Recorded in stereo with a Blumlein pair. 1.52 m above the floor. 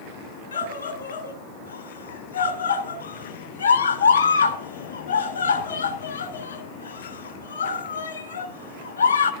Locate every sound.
0.5 s a scream: 65° left, 3 m